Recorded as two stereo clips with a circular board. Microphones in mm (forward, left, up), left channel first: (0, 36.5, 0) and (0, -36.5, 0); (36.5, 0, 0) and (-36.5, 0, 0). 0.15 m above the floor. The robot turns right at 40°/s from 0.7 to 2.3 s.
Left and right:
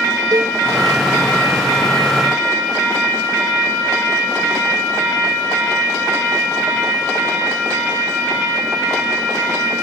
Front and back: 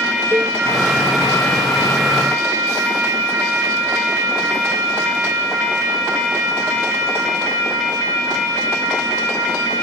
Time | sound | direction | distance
0.3 | a cowbell | 120° right | ?